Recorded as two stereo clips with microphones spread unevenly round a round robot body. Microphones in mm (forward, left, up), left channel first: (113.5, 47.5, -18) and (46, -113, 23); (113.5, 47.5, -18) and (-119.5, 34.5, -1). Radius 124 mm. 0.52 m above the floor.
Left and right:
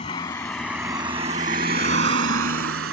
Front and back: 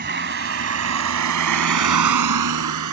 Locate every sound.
0.0 s a vehicle: 135° left; by 2.9 s 150° right